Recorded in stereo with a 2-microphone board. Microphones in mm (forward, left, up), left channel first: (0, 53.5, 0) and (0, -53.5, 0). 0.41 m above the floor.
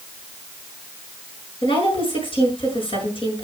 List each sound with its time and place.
1.6 s a woman speaking: 55° left (ahead or behind), 6.5 m